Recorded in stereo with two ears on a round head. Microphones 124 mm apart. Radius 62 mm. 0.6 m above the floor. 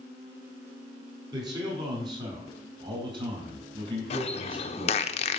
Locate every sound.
1.3 s a man speaking: 30° right (ahead or behind), 5 m; by 5.1 s 40° right (ahead or behind), 3.5 m
4.1 s a bird: 45° left (ahead or behind), 0.7 m